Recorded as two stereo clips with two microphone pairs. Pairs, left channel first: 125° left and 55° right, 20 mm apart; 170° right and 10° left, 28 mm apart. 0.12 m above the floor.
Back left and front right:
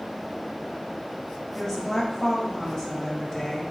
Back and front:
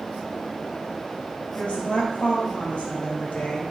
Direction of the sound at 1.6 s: Straight behind.